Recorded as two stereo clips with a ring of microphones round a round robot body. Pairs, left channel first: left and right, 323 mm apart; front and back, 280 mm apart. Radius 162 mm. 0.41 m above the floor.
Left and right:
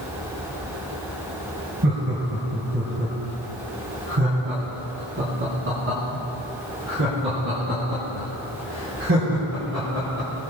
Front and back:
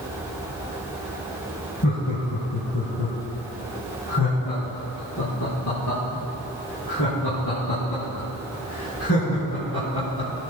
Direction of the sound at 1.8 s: 35° right.